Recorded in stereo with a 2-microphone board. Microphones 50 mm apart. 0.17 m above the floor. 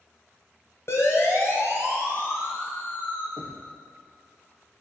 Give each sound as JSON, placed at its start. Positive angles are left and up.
{"t": 0.9, "sound": "a siren", "side_deg": 60, "distance_m": 4.0}
{"t": 3.4, "sound": "knocking", "side_deg": 30, "distance_m": 4.0}